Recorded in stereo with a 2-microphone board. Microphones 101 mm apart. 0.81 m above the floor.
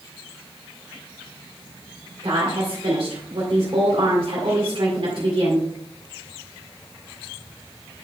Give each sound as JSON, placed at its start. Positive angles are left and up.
{"t": 2.2, "sound": "a woman speaking", "side_deg": -65, "distance_m": 2.0}